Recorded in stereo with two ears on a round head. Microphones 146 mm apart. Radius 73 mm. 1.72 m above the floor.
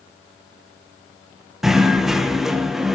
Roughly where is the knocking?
Centre.